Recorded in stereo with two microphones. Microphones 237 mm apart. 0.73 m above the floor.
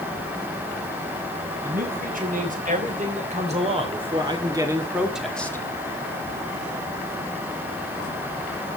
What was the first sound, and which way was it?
A man speaking, 40° right (ahead or behind).